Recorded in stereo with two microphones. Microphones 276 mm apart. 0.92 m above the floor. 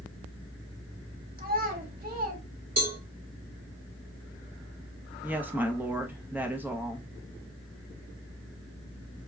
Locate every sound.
1.4 s a child speaking: 30° right (ahead or behind), 1.3 m
2.8 s a cowbell: 60° right (ahead or behind), 1.3 m
5.2 s a woman speaking: 5° right (ahead or behind), 0.7 m